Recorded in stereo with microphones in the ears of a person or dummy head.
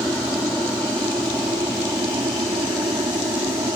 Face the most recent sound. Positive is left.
turn(degrees=-15)  # may be behind; listen again after turning